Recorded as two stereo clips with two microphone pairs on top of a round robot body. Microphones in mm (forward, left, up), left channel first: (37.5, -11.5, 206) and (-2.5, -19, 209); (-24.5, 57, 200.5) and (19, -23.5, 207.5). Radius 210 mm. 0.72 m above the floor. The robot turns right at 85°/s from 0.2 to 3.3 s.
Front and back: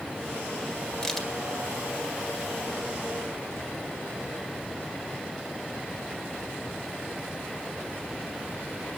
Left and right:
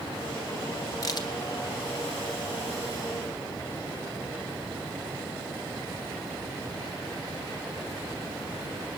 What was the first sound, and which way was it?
A crack, 75° left.